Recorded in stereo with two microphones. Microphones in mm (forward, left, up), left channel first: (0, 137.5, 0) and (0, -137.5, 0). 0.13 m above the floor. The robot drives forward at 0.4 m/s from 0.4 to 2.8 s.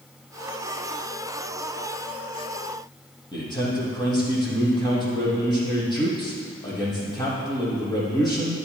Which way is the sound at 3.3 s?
15° left (ahead or behind).